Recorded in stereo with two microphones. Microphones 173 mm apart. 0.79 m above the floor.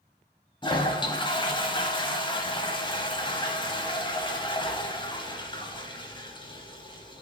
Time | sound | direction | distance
0.6 | a toilet flushing | 30° left (ahead or behind) | 0.9 m